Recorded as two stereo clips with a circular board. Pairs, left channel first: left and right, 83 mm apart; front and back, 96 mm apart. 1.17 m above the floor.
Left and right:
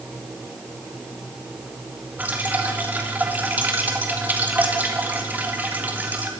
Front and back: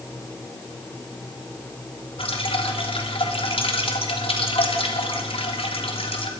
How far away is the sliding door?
No sliding door in this recording.